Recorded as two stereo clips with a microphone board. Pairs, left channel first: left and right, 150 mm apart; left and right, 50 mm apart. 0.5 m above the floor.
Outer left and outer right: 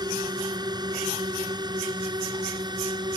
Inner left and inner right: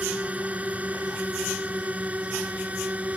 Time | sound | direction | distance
0.0 | a drone | 25° right (ahead or behind) | ?